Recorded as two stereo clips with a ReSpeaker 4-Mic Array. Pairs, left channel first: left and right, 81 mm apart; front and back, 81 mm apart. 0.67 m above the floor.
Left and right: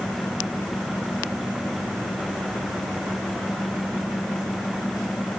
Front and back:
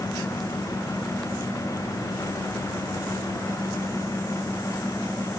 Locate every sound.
Only background noise.